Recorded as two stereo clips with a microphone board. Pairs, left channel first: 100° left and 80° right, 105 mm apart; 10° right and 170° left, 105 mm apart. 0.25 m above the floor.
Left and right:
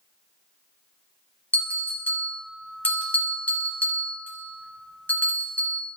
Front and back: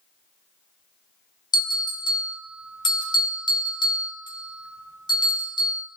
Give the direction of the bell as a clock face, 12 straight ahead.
11 o'clock.